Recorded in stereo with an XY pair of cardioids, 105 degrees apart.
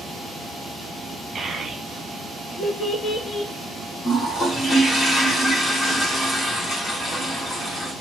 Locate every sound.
1.4 s a child speaking: 35° right, 1.2 m; by 3.5 s 60° left, 1.4 m
4.0 s a toilet flushing: 40° left, 1.8 m